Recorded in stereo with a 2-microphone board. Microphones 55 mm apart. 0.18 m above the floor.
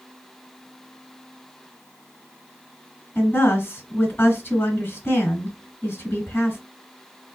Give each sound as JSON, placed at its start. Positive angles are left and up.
{"t": 3.1, "sound": "a woman speaking", "side_deg": 25, "distance_m": 1.5}